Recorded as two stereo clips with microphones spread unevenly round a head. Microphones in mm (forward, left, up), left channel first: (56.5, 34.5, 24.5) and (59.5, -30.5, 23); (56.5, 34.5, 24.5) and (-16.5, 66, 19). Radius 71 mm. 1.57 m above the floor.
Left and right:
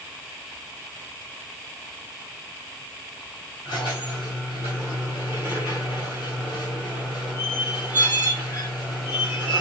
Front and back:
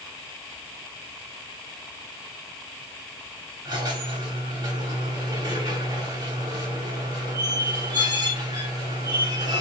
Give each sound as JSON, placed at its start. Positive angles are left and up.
{"t": 3.6, "sound": "a squeak", "azimuth_deg": 135, "distance_m": 2.0}